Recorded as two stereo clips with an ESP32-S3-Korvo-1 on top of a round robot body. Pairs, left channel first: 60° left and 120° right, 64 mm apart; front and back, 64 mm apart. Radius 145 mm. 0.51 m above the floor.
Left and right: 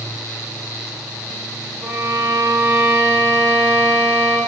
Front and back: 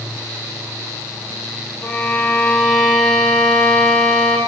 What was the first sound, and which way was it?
A violin, 70° right.